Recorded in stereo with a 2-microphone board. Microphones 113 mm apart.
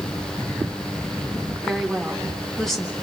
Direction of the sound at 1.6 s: 5° left (ahead or behind).